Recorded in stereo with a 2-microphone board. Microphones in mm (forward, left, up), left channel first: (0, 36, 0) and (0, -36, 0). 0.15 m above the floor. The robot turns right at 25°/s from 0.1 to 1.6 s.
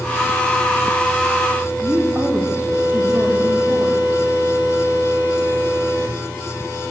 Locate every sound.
1.8 s a woman speaking: 30° right (ahead or behind), 5.5 m